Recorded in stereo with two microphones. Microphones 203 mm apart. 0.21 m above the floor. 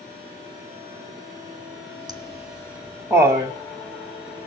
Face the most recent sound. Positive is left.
turn(degrees=-25)  # may be behind; listen again after turning